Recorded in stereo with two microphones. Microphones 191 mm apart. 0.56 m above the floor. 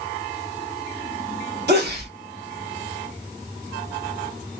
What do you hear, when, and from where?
1.7 s a sneeze: 60° right (ahead or behind), 1.7 m